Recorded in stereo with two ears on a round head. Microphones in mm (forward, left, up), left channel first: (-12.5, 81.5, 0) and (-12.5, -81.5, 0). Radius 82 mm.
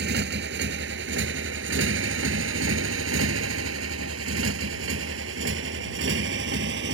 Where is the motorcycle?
65° right (ahead or behind).